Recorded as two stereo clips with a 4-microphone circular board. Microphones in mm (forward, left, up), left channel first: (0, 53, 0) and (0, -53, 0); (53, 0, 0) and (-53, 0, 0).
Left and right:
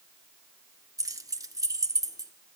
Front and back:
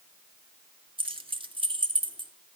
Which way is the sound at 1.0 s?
145° right.